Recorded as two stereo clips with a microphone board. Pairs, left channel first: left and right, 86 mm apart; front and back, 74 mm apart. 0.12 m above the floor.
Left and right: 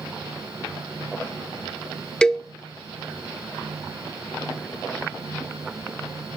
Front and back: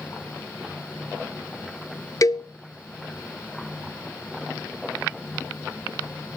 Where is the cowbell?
10° left, 0.7 m.